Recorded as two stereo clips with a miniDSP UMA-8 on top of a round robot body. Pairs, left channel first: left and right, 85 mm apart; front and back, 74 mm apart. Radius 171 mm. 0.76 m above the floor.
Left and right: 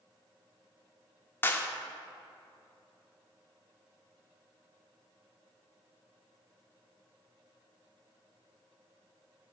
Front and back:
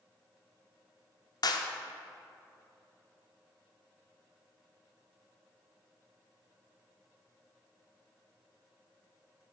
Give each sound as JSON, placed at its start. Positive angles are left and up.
{"t": 1.4, "sound": "a clap", "azimuth_deg": 25, "distance_m": 1.0}